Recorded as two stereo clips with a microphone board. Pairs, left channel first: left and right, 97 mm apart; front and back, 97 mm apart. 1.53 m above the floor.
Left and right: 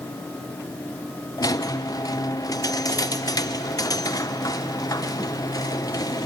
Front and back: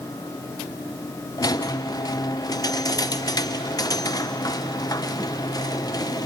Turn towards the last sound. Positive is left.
turn(degrees=45)